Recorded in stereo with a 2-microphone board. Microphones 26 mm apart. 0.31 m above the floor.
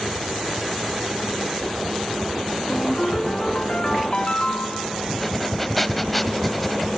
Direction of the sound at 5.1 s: Centre (ahead or behind).